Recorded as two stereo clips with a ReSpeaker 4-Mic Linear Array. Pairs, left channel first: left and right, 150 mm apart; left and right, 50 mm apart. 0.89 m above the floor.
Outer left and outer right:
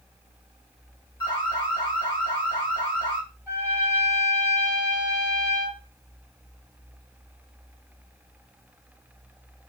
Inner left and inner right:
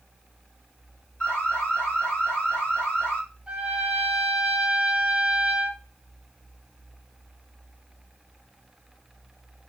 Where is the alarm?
30° left (ahead or behind), 1.6 m.